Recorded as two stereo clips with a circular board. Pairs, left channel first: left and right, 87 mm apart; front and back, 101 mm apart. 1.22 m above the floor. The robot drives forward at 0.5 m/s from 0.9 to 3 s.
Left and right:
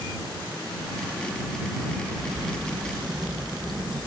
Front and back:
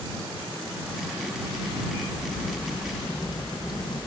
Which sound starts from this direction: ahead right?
A crack, at 2.0 s.